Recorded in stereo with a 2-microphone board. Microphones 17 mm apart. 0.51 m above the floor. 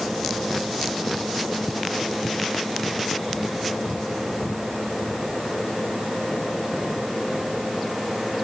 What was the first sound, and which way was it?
Only background noise.